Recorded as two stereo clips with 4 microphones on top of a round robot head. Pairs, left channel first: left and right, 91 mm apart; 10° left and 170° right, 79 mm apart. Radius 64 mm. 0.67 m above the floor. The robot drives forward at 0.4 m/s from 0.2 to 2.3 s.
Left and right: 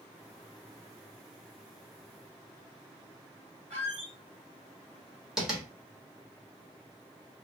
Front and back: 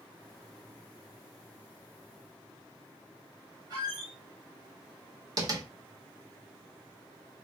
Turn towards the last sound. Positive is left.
turn(degrees=-175)